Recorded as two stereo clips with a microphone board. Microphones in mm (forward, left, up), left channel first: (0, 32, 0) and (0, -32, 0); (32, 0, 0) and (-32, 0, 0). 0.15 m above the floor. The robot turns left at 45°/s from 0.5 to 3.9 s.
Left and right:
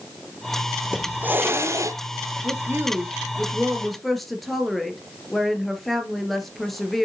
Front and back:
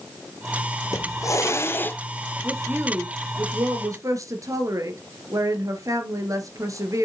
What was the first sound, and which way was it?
A hiss, 10° right.